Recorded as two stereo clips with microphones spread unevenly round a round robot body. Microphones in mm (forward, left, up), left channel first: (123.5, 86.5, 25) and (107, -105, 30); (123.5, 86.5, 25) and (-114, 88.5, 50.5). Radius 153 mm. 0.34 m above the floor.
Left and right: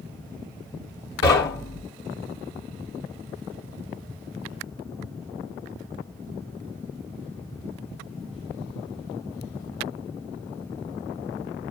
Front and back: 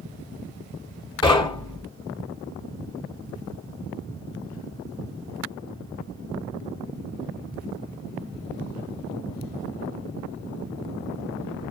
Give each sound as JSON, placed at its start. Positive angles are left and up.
{"t": 1.2, "sound": "knocking", "azimuth_deg": 65, "distance_m": 3.0}